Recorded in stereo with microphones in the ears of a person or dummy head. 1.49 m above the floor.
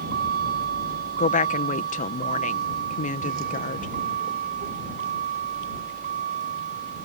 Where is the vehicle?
60° right (ahead or behind); by 7.0 s 50° right (ahead or behind).